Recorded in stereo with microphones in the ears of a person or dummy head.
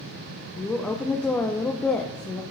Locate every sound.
0.6 s a woman speaking: 10° left (ahead or behind), 0.5 m